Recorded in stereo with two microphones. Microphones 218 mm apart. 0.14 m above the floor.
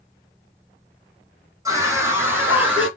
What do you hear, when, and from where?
1.6 s a scream: 15° right (ahead or behind), 1.6 m; by 2.9 s 5° right (ahead or behind), 2 m